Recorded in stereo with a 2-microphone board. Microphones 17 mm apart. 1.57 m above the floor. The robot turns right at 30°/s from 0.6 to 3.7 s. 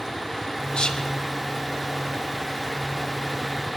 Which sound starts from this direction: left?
Whispering, at 0.7 s.